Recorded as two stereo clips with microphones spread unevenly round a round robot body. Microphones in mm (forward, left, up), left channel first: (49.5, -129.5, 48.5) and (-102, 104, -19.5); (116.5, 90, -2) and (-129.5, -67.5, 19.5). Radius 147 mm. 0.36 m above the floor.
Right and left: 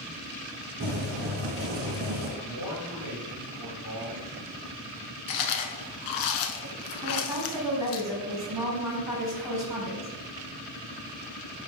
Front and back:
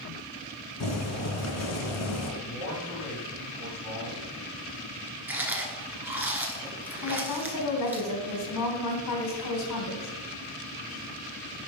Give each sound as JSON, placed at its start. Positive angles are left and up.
{"t": 0.8, "sound": "boiling", "azimuth_deg": 65, "distance_m": 1.7}
{"t": 2.4, "sound": "a man speaking", "azimuth_deg": 55, "distance_m": 3.0}
{"t": 5.3, "sound": "chewing", "azimuth_deg": -65, "distance_m": 1.0}
{"t": 7.0, "sound": "a woman speaking", "azimuth_deg": 50, "distance_m": 3.5}